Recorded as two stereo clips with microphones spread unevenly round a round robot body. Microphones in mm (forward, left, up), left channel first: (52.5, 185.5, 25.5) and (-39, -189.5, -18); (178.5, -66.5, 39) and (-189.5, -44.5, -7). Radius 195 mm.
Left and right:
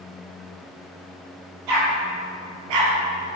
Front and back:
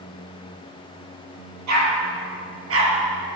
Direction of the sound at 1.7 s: 135° right.